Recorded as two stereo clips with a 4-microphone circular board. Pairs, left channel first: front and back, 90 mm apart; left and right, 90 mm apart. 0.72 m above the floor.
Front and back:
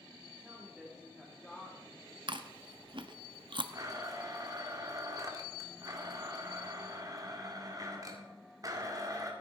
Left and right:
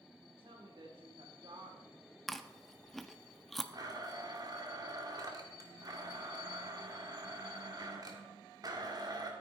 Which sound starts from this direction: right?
A woman speaking, at 0.2 s.